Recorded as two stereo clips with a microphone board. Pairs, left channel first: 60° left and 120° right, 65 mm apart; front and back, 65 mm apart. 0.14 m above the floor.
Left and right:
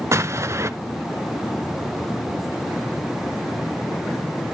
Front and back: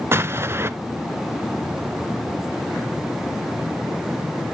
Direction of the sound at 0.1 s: 140° right.